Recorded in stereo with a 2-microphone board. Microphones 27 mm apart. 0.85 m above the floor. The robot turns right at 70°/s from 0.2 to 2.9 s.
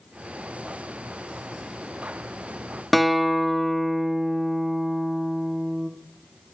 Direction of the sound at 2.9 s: Centre (ahead or behind).